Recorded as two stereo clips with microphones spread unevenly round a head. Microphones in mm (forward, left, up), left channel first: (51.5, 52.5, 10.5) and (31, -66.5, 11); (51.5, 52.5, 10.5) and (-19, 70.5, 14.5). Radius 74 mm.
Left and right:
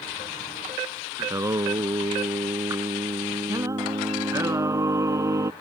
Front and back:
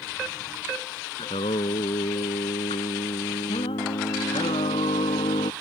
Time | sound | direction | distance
1.2 | singing | 35° right | ?